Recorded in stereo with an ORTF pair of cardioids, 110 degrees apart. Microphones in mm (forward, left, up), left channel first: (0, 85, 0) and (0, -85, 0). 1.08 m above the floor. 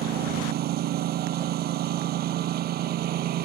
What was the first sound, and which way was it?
A lawn mower, 65° right.